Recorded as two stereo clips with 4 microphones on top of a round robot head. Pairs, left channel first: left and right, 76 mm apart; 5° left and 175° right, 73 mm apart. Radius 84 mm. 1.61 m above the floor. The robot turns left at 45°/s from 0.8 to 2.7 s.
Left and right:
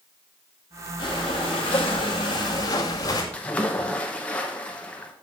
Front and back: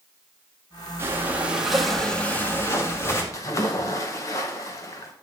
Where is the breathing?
130° left, 2 m; by 3.2 s 55° left, 2 m.